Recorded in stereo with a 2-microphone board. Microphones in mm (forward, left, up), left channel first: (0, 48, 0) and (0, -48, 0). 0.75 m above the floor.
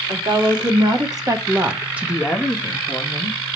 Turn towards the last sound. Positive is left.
turn(degrees=35)  # may be behind; listen again after turning